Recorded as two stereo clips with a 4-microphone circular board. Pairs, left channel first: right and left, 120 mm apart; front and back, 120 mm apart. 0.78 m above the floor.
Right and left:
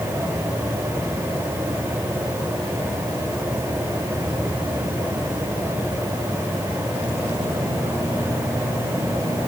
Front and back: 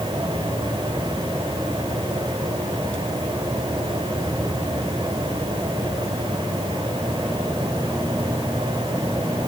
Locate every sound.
Only background noise.